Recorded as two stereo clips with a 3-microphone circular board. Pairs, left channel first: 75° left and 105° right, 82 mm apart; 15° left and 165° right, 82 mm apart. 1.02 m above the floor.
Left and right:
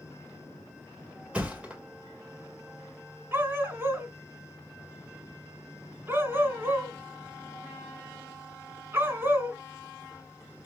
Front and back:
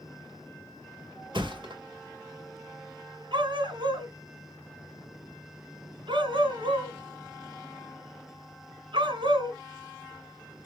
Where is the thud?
Straight behind, 1.8 m.